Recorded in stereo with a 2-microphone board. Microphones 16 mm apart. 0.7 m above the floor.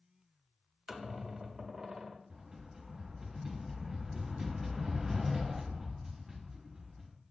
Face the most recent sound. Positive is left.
turn(degrees=-25)  # may be behind; listen again after turning